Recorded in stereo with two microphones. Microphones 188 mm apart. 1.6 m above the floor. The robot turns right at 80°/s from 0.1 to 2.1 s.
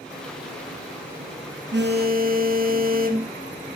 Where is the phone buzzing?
85° right, 0.6 m; by 3.3 s 50° right, 0.6 m.